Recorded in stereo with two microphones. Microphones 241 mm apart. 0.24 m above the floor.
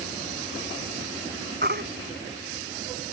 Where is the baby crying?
45° right (ahead or behind).